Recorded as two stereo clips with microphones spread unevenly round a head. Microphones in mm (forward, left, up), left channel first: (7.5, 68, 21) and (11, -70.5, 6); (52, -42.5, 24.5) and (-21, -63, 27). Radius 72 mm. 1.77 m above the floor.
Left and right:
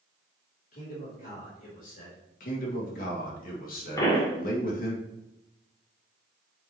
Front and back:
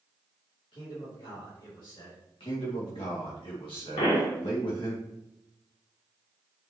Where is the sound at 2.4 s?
65° left, 2 m.